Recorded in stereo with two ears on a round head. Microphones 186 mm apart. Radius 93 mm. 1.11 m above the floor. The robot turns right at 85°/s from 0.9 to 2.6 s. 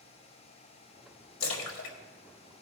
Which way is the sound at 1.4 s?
65° left (ahead or behind).